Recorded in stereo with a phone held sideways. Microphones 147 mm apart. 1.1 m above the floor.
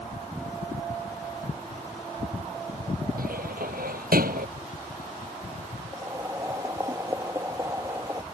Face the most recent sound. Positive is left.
turn(degrees=-20)  # may be behind; listen again after turning